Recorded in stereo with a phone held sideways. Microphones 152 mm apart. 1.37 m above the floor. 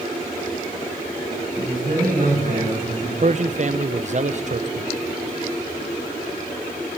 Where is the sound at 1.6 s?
55° right (ahead or behind), 8 m.